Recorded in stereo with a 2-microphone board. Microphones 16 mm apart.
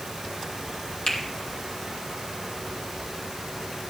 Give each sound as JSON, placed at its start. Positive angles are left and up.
{"t": 1.1, "sound": "a finger snap", "side_deg": 70, "distance_m": 3.0}